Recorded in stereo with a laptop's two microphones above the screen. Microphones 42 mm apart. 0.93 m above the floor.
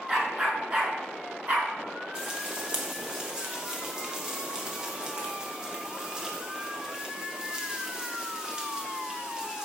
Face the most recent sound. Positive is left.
turn(degrees=-20)  # may be behind; listen again after turning